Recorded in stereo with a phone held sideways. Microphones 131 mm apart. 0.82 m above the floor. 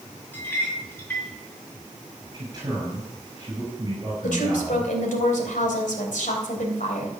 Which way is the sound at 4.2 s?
85° left.